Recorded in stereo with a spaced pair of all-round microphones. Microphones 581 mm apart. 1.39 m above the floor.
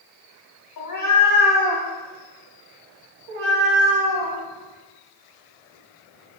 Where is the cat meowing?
35° left (ahead or behind), 0.9 m; by 6.4 s 75° right (ahead or behind), 2.5 m.